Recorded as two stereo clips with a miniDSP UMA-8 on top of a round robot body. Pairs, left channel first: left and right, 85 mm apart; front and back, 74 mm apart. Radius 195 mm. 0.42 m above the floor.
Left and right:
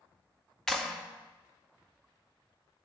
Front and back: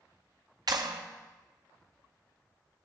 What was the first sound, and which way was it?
A clap, 175° left.